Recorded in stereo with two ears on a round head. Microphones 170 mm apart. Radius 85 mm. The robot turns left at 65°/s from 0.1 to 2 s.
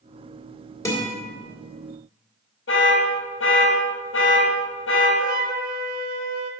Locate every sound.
0.8 s a guitar: 15° left (ahead or behind), 1.6 m; by 1.2 s 5° right (ahead or behind), 1.6 m
2.7 s an alarm: 70° left (ahead or behind), 1.6 m
5.2 s a flute: 45° right (ahead or behind), 0.7 m